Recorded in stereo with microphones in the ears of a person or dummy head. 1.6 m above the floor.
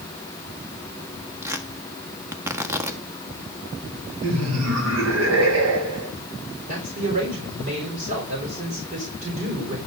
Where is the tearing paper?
10° right (ahead or behind), 1.5 m.